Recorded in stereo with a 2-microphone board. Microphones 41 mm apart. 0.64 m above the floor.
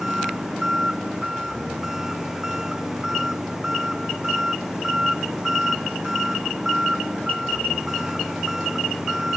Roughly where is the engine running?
Centre.